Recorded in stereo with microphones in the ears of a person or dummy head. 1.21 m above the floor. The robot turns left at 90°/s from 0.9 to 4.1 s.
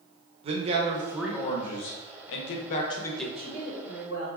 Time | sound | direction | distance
0.4 | a man speaking | 150° right | 0.6 m
3.4 | a woman speaking | straight behind | 1.4 m